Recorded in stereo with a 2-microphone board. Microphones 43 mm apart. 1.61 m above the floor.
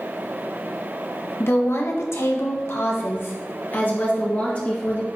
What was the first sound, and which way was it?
A woman speaking, 70° left (ahead or behind).